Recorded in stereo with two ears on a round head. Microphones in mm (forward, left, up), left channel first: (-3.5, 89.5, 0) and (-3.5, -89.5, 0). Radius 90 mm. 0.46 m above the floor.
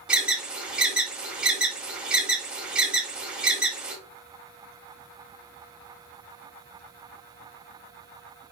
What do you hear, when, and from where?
0.1 s an alarm: 5° right (ahead or behind), 2 m